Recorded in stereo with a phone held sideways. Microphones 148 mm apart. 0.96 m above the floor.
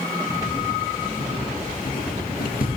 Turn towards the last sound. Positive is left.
turn(degrees=70)  # may be behind; listen again after turning